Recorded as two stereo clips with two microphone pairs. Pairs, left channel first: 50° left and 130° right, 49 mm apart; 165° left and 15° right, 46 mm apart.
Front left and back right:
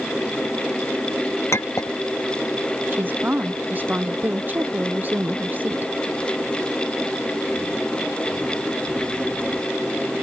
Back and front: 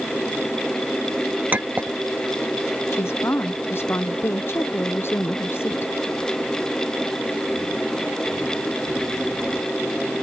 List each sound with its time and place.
1.5 s a clink: 35° left
2.9 s a woman speaking: 175° right